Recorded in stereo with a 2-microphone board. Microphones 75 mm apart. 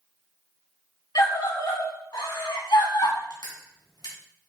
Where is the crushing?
75° left (ahead or behind), 4 m.